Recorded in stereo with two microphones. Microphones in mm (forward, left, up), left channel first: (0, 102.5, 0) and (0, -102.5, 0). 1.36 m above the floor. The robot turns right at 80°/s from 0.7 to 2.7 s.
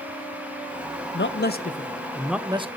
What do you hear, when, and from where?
1.1 s a man speaking: 90° left, 0.8 m; by 2.7 s 145° right, 0.8 m